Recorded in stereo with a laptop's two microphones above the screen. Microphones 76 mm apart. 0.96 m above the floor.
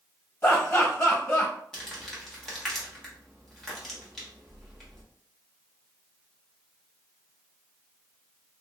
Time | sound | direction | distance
0.4 | laughter | 40° left (ahead or behind) | 1.9 m
1.7 | crumpling | 5° left (ahead or behind) | 1.0 m